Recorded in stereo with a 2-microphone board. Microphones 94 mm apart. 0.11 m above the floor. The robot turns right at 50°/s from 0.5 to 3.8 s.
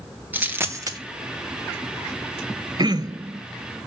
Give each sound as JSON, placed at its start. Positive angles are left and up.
{"t": 0.3, "sound": "a dropped coin", "side_deg": -20, "distance_m": 1.1}
{"t": 2.8, "sound": "throat clearing", "azimuth_deg": -85, "distance_m": 0.6}